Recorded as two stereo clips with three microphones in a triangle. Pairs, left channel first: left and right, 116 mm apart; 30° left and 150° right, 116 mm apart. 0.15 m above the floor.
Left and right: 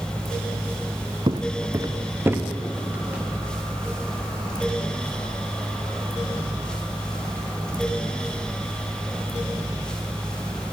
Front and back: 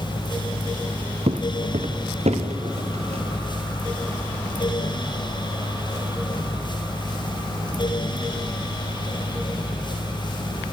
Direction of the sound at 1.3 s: 130° right.